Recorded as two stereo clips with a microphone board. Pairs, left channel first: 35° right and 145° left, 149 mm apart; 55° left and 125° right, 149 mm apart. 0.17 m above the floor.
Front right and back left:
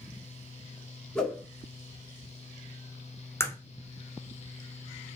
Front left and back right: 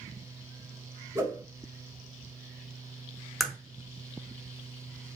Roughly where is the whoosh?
Right.